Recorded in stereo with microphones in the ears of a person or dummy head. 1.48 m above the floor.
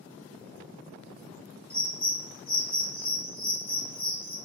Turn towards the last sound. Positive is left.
turn(degrees=25)  # may be behind; listen again after turning